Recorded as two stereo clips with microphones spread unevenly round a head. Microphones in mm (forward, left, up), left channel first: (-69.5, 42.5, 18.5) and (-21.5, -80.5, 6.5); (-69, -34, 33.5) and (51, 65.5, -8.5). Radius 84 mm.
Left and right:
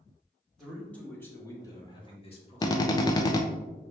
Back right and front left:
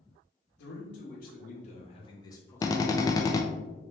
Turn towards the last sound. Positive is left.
turn(degrees=145)